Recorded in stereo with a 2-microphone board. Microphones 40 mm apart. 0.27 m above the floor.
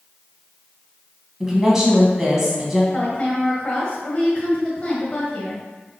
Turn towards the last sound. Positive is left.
turn(degrees=25)  # may be behind; listen again after turning